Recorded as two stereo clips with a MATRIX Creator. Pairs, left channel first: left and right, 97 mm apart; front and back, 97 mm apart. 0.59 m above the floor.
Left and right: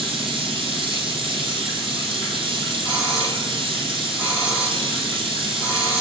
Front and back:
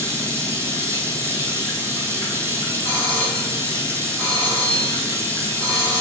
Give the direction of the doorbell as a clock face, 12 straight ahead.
5 o'clock.